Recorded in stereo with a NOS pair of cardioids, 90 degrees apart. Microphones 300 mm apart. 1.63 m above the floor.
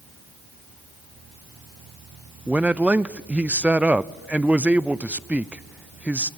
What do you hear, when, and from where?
2.5 s a man speaking: 5° right, 0.6 m